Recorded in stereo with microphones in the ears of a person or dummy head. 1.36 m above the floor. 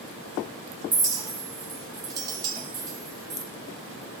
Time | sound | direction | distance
0.9 | a clink | 20° right (ahead or behind) | 0.6 m